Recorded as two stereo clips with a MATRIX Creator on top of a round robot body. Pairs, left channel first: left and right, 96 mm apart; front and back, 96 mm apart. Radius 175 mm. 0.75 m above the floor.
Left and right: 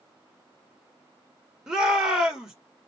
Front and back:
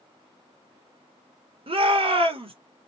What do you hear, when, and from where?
1.7 s a shout: 175° right, 1.8 m